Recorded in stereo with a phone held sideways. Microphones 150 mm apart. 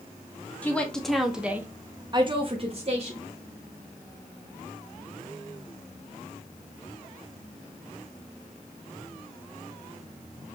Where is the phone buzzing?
I don't hear a phone buzzing.